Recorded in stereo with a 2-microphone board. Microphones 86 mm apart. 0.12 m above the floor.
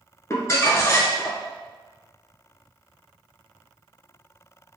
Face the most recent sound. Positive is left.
turn(degrees=35)  # may be behind; listen again after turning